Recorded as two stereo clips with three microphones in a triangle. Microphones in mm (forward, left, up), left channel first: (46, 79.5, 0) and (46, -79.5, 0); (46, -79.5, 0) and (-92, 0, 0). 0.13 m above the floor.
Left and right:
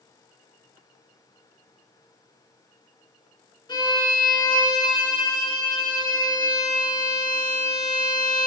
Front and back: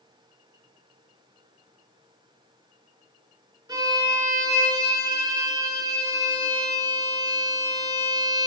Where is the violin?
115° left, 0.8 m.